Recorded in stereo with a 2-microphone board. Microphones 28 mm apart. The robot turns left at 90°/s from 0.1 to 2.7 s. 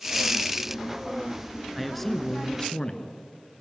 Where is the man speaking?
5° right (ahead or behind), 1.8 m; by 3.2 s 25° left (ahead or behind), 1.8 m.